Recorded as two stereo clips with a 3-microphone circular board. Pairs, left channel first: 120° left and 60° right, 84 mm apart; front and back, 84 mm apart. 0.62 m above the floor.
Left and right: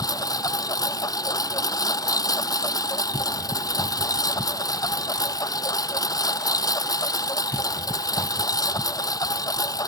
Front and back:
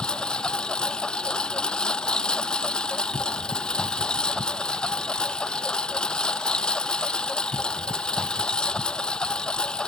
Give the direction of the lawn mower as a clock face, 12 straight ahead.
9 o'clock.